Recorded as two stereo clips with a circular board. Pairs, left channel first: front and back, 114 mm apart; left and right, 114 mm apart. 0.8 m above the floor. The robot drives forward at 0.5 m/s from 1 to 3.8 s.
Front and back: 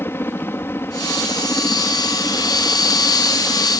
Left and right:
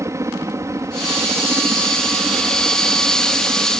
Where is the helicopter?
55° right.